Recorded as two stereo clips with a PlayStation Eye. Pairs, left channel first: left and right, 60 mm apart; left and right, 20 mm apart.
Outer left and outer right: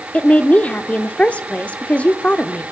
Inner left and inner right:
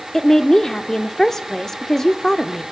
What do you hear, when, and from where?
0.1 s a woman speaking: 20° left (ahead or behind), 0.7 m